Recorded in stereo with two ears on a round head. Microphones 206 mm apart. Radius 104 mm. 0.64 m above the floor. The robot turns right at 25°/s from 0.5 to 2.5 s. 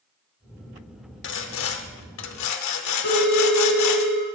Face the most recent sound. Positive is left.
turn(degrees=70)  # may be behind; listen again after turning